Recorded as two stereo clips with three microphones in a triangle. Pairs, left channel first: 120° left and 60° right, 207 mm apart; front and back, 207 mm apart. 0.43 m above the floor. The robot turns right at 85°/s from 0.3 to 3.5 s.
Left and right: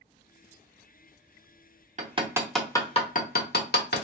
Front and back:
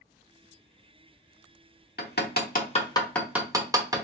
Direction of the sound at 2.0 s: 15° right.